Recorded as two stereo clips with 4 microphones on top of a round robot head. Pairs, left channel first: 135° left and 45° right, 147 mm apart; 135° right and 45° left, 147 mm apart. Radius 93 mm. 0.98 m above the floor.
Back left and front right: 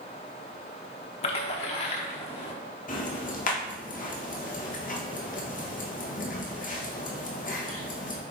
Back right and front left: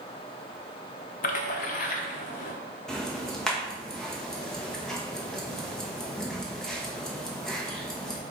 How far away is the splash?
About 0.8 m.